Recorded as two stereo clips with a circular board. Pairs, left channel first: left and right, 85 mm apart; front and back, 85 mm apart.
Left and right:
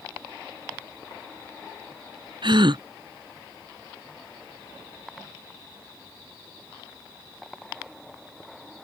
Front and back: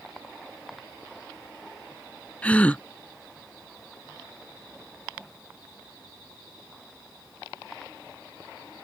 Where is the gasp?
75° right.